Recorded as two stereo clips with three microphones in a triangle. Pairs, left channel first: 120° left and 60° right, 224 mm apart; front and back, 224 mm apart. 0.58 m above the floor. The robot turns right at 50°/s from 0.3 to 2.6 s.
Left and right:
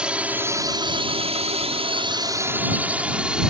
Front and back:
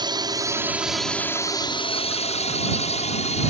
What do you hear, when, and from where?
0.0 s a drone: 140° right; by 3.5 s 25° left